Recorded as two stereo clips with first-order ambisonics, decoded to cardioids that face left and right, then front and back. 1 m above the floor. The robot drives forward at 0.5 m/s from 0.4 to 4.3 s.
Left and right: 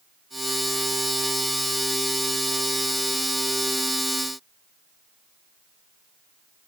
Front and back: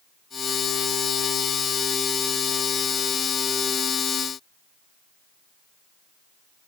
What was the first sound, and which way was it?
Only background noise.